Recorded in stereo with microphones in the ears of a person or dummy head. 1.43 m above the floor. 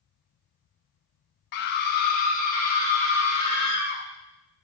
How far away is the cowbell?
I don't hear a cowbell.